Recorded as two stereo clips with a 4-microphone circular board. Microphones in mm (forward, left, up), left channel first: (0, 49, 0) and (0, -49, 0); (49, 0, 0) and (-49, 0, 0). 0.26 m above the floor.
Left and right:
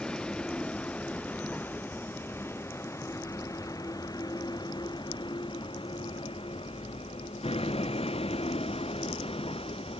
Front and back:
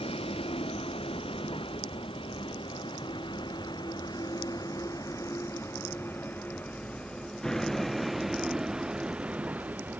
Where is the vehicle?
10° left; by 10.0 s 110° left.